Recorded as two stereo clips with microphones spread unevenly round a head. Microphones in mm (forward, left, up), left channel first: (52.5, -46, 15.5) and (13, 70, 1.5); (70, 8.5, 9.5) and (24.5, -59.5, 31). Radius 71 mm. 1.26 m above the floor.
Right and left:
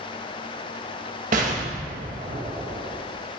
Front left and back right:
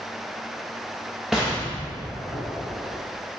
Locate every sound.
1.3 s an explosion: 150° left, 1.4 m